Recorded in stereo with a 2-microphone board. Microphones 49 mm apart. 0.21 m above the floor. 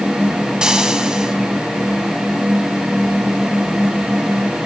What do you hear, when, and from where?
0.6 s frying: 20° right (ahead or behind), 1.4 m